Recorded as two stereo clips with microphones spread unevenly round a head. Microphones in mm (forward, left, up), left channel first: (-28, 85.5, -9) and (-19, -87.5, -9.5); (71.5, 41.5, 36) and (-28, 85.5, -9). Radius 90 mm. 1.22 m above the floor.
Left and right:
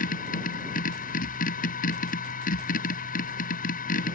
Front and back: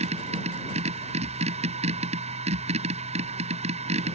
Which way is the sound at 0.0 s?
135° left.